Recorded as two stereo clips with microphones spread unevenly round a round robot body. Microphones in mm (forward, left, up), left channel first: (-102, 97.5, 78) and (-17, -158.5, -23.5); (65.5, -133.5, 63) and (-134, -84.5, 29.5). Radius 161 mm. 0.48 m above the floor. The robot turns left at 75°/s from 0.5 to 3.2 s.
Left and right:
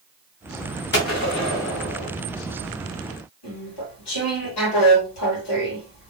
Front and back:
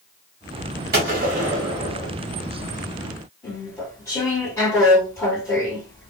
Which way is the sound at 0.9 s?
165° left.